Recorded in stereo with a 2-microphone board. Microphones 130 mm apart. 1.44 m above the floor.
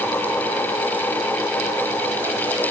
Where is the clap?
I don't hear a clap.